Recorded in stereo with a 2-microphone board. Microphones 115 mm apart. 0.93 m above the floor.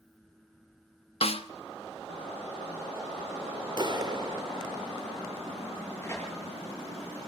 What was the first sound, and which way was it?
A snare drum, 60° left (ahead or behind).